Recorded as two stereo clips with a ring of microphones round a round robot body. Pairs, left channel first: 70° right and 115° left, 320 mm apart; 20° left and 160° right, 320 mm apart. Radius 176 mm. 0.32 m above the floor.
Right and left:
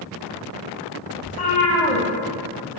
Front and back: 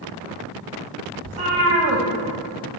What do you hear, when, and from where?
1.2 s a cat meowing: 140° right, 2.5 m